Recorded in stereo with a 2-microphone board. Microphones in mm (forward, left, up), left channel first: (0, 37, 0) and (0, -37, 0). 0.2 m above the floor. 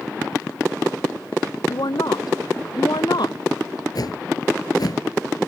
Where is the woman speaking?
65° left (ahead or behind); by 3.4 s 70° left (ahead or behind).